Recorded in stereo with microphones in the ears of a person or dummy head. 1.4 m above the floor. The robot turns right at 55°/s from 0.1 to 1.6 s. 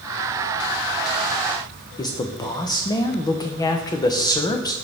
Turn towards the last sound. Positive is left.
turn(degrees=20)  # may be behind; listen again after turning